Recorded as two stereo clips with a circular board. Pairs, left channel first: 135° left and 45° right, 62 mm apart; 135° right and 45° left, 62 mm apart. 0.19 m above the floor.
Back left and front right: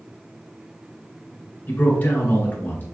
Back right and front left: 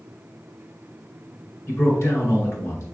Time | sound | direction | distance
1.7 | a man speaking | 170° right | 2 m